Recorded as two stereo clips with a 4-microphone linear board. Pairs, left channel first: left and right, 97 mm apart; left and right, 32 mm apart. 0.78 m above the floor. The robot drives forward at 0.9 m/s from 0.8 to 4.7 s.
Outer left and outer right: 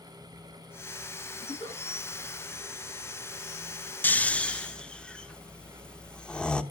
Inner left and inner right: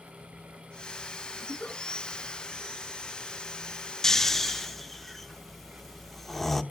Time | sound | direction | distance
1.4 | a giggle | 70° left (ahead or behind) | 7.5 m
4.0 | snoring | 20° left (ahead or behind) | 0.6 m